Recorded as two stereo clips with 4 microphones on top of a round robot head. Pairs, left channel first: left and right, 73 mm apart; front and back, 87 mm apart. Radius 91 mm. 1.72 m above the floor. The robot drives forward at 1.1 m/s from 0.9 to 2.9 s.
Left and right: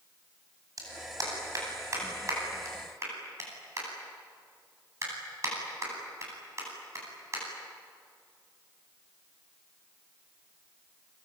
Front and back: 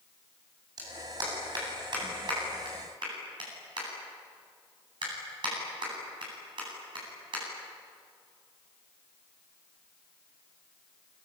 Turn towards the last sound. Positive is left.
turn(degrees=-140)